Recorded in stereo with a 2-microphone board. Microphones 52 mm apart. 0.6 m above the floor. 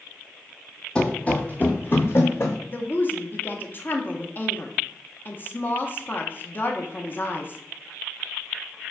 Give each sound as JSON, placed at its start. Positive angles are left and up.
{"t": 0.9, "sound": "running footsteps", "side_deg": 15, "distance_m": 0.9}
{"t": 2.7, "sound": "a woman speaking", "side_deg": 35, "distance_m": 0.8}